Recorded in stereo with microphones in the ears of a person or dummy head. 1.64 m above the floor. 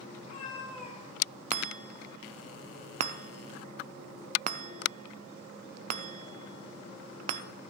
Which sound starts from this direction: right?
A chime, at 1.5 s.